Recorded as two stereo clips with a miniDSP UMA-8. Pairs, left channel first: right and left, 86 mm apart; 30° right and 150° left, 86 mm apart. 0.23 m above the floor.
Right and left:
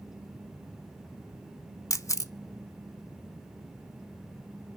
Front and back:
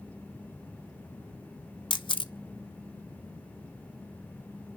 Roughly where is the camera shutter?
Ahead right.